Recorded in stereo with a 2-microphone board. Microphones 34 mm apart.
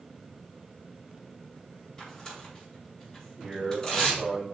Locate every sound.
2.0 s tearing paper: 25° left (ahead or behind), 4.5 m
3.4 s a man speaking: 5° right (ahead or behind), 4 m